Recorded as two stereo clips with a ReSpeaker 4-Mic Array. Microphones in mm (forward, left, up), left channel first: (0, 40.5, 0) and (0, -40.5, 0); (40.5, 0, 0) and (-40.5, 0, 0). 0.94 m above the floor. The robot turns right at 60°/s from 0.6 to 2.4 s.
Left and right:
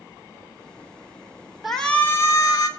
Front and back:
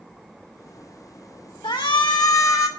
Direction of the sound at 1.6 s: Straight ahead.